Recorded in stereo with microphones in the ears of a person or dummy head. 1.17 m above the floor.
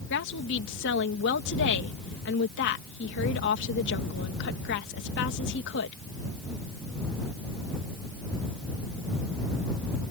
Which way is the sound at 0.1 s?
60° left (ahead or behind).